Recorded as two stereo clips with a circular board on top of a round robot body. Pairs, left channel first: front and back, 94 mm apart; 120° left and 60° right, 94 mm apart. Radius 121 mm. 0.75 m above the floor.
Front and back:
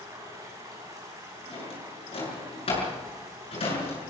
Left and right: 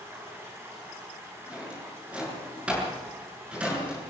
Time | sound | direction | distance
0.0 | running water | 125° right | 5.5 m
1.5 | a drawer | 20° left | 7.5 m